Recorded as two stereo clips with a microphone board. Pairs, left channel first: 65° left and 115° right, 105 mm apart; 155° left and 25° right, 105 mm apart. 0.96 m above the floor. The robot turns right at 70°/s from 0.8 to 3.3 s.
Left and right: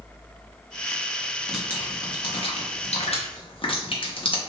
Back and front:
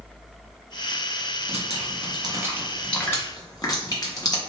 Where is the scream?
I don't hear a scream.